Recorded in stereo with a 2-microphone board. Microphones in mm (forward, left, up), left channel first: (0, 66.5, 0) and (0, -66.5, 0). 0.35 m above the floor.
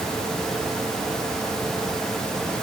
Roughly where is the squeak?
No squeak in this recording.